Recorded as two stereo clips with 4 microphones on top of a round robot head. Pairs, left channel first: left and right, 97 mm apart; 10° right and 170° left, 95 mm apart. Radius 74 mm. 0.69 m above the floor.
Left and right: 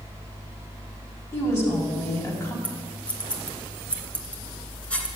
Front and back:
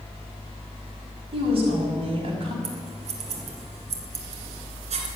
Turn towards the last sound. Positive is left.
turn(degrees=170)